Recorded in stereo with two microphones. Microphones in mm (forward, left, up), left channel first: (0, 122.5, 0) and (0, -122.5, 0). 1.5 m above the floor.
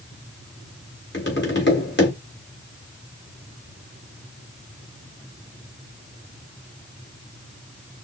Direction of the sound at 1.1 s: 45° left (ahead or behind).